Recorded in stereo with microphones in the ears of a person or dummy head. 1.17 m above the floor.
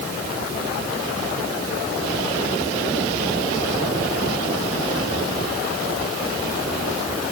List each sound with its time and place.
Only background noise.